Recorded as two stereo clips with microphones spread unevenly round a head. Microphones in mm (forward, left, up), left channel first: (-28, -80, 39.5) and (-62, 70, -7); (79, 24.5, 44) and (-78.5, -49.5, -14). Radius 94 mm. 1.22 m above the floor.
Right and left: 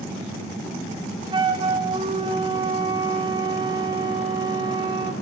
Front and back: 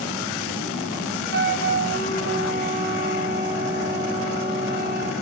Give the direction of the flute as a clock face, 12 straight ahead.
6 o'clock.